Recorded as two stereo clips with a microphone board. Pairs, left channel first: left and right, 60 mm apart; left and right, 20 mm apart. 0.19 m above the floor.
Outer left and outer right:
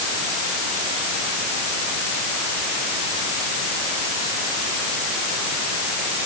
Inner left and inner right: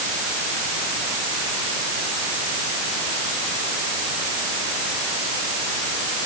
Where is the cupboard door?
No cupboard door in this recording.